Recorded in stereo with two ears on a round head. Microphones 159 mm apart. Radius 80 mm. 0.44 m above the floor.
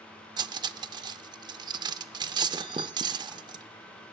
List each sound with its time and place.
0.4 s cutlery clinking: 25° right (ahead or behind), 0.6 m